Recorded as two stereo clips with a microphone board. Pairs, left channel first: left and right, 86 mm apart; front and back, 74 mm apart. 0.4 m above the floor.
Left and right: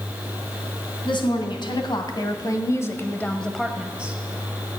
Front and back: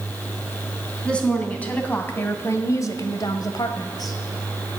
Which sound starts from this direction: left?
A woman speaking, at 1.1 s.